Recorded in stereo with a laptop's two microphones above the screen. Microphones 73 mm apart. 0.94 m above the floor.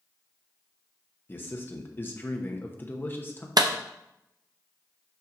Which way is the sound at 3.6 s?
65° right (ahead or behind).